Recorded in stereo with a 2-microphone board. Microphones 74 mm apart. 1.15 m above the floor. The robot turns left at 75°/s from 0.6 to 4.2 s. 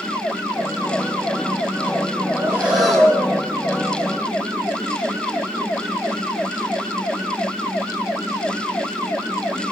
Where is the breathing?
140° right, 4.5 m; by 3.3 s 145° left, 4.5 m.